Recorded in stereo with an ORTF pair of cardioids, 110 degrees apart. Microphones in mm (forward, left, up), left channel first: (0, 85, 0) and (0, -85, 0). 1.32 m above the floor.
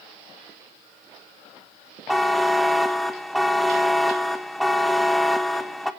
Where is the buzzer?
Straight ahead, 1.1 m.